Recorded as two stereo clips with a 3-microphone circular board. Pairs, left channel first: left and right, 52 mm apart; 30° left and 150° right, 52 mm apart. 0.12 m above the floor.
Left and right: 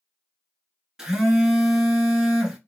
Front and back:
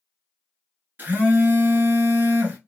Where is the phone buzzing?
160° right, 0.8 m.